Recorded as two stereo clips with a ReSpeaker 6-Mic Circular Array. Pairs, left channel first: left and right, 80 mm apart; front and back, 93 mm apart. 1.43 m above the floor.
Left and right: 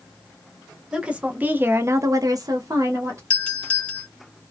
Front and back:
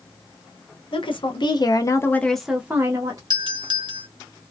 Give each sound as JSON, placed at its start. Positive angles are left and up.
{"t": 0.9, "sound": "a woman speaking", "azimuth_deg": -15, "distance_m": 0.9}
{"t": 3.3, "sound": "a doorbell", "azimuth_deg": 160, "distance_m": 0.9}